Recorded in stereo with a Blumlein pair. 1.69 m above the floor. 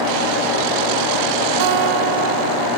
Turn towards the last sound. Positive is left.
turn(degrees=-45)